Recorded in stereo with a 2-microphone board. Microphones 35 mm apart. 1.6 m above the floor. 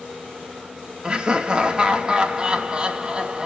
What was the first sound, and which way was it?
Laughter, 25° right (ahead or behind).